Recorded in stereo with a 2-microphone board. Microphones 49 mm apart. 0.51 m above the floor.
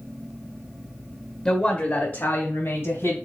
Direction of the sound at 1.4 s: 20° left (ahead or behind).